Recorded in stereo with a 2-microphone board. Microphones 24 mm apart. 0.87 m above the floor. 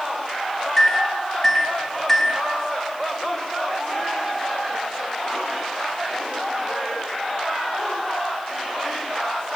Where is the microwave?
10° left (ahead or behind), 0.6 m.